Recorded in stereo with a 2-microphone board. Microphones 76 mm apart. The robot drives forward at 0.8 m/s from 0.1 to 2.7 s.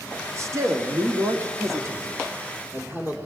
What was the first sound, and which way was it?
A man speaking, 40° right (ahead or behind).